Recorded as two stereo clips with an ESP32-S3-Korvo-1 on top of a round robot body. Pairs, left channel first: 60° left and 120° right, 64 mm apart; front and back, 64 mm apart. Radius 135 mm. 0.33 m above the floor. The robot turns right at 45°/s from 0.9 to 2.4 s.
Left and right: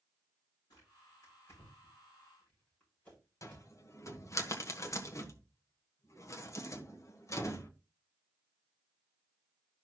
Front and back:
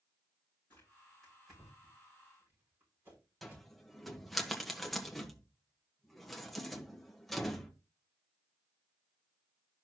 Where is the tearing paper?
60° left, 7.5 m; by 3.7 s 125° left, 7.5 m.